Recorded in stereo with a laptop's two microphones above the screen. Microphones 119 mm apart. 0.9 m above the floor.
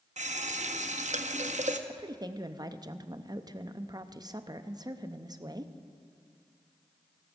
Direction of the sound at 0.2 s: 80° right.